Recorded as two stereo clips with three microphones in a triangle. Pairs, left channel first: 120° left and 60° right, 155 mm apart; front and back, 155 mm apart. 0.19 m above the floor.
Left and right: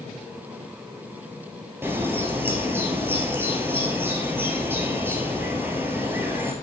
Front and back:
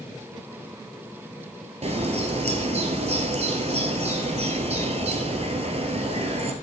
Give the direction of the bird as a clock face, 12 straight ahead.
5 o'clock.